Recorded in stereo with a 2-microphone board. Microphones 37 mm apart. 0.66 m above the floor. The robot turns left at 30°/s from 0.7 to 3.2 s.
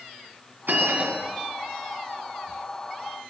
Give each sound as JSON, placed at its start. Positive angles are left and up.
{"t": 0.7, "sound": "a bell", "side_deg": -70, "distance_m": 2.5}